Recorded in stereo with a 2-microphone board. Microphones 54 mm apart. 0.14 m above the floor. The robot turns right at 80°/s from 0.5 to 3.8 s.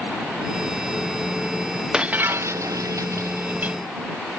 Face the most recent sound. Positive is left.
turn(degrees=-20)